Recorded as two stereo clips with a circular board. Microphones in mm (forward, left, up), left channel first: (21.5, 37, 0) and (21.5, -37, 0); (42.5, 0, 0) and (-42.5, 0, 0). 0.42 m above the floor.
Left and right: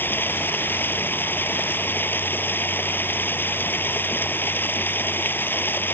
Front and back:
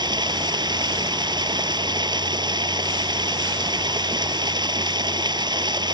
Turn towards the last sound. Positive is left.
turn(degrees=150)